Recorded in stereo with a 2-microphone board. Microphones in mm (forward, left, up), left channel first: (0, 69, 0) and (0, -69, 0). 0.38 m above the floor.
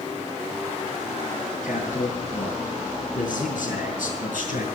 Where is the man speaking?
75° left (ahead or behind), 6.5 m; by 4.7 s 70° left (ahead or behind), 5 m.